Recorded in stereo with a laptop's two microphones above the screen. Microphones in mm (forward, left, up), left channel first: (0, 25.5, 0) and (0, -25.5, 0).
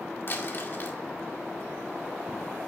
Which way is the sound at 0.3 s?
45° left (ahead or behind).